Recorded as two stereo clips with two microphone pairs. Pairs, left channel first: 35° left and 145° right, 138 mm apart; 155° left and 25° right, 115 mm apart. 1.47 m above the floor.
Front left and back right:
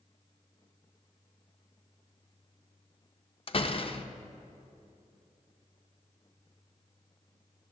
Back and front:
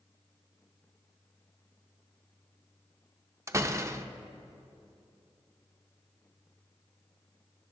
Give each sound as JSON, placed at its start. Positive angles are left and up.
{"t": 3.5, "sound": "a door slam", "azimuth_deg": 25, "distance_m": 0.5}